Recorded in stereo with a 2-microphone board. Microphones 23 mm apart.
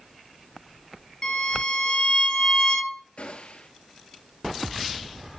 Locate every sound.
1.2 s a violin: 35° left (ahead or behind), 2.5 m
3.2 s a gunshot: 55° left (ahead or behind), 1.5 m